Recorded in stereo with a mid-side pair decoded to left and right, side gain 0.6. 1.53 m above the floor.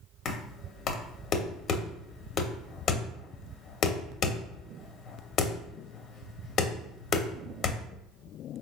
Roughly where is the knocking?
Ahead left.